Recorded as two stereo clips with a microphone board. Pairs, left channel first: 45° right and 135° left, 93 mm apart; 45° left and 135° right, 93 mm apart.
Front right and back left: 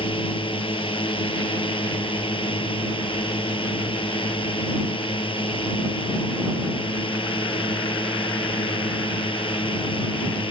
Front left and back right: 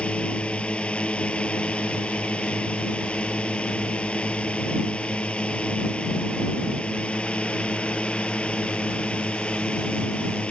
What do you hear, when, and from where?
0.0 s a drone: 30° right